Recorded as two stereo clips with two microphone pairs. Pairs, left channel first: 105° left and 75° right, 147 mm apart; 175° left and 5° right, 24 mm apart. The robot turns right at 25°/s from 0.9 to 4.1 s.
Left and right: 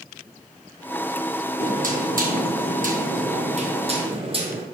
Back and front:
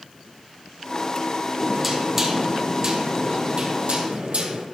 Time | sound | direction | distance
1.6 | knocking | 90° right | 2 m